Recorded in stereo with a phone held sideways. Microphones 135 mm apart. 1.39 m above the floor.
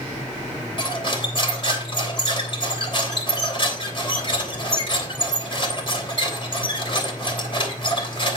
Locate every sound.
0.8 s cutlery clinking: 40° left (ahead or behind), 3 m